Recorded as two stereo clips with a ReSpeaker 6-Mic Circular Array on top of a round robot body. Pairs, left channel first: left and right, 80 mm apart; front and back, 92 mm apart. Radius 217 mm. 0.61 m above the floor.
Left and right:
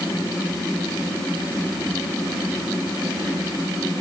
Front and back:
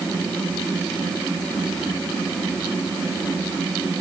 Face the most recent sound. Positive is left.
No sound to turn to.